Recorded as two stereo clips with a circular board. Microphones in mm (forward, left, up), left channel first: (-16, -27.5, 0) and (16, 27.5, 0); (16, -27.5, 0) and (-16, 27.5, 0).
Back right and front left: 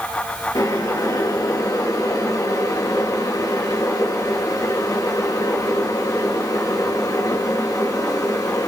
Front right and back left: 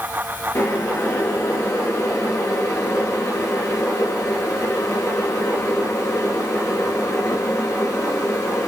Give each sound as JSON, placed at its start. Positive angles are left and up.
{"t": 0.6, "sound": "boiling", "azimuth_deg": -105, "distance_m": 7.5}